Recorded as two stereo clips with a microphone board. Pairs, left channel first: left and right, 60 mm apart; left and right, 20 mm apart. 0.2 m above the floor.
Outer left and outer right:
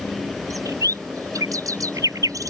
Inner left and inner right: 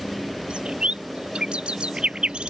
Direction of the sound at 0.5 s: 75° right (ahead or behind).